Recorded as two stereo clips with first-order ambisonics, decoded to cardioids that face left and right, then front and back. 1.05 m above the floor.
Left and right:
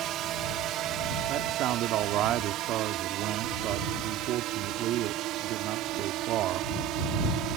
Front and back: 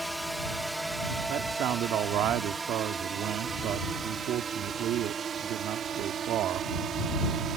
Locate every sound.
0.0 s a drone: 90° right; by 7.6 s 125° right
1.3 s a man speaking: 135° right